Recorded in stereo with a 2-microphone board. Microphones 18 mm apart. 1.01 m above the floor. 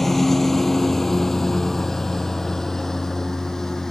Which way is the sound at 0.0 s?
15° left (ahead or behind).